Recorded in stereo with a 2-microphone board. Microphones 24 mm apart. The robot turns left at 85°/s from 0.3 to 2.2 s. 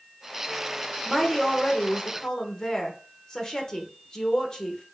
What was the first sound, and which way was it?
A woman speaking, 5° right (ahead or behind).